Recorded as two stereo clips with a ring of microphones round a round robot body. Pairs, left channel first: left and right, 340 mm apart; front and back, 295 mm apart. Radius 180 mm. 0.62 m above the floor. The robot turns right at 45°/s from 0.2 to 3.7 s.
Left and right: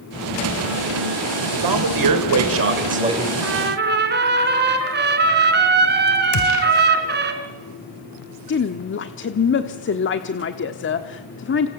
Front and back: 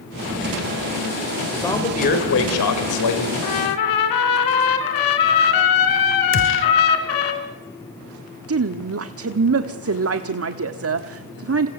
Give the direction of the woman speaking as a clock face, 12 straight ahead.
7 o'clock.